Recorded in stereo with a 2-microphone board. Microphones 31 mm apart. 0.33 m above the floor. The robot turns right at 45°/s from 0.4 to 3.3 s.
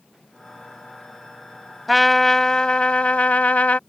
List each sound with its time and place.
1.9 s a trumpet: straight ahead; by 3.8 s 65° left